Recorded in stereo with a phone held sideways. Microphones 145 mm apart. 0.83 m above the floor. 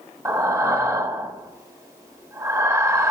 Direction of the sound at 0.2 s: 20° right (ahead or behind).